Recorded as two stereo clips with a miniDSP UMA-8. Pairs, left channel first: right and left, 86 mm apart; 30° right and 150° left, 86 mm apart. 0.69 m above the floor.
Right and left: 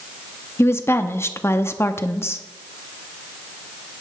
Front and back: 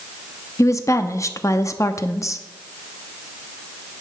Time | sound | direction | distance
0.6 | a woman speaking | 50° right | 0.7 m